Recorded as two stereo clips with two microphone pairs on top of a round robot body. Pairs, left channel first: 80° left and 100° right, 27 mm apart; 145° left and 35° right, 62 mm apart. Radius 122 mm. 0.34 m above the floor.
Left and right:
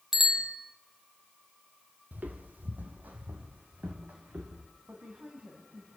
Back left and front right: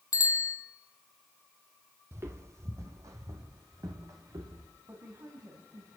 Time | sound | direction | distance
0.1 | a bicycle bell | 175° right | 2.5 m
2.1 | footsteps | 90° right | 1.2 m
4.9 | a woman speaking | 70° right | 3 m